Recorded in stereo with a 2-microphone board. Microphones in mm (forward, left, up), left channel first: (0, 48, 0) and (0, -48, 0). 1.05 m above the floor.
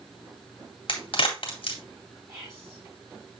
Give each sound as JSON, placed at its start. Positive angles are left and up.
{"t": 0.9, "sound": "a crack", "side_deg": 65, "distance_m": 2.0}
{"t": 2.3, "sound": "whispering", "side_deg": -25, "distance_m": 5.5}